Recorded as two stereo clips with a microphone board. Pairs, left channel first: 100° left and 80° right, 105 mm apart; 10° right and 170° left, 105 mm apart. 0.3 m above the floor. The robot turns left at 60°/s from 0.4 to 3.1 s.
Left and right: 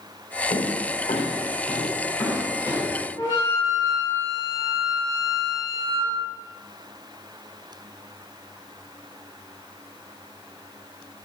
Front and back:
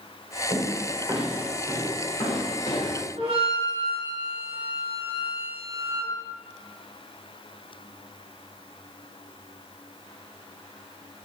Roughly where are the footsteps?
Behind left.